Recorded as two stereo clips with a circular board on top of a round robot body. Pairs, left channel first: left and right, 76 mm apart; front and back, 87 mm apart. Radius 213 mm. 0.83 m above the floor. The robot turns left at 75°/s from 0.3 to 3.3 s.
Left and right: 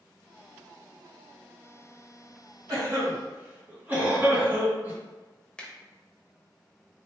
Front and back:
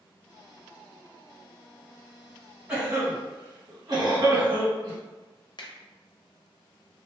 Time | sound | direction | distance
2.7 | a cough | 110° right | 1.8 m
5.6 | a finger snap | 15° left | 0.9 m